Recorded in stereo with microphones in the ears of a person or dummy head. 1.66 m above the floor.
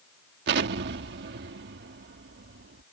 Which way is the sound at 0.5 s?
55° right (ahead or behind).